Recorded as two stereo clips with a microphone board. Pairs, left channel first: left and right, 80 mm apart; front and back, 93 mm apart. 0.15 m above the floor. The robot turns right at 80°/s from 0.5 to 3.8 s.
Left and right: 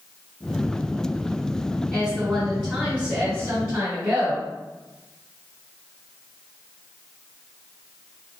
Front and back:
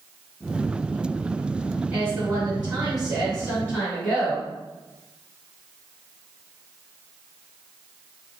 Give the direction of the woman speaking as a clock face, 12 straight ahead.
7 o'clock.